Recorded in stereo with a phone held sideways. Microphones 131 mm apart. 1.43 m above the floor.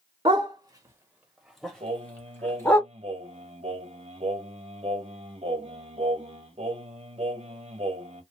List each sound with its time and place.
0.2 s a dog barking: 40° right (ahead or behind), 1.2 m; by 2.8 s 25° left (ahead or behind), 1.6 m
1.8 s singing: 50° right (ahead or behind), 1.2 m